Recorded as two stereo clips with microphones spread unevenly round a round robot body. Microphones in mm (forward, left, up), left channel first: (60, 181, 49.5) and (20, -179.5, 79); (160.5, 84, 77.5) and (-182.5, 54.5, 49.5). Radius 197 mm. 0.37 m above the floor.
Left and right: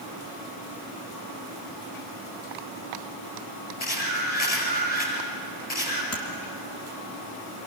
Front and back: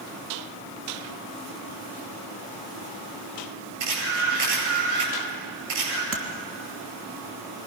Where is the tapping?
135° left, 3 m.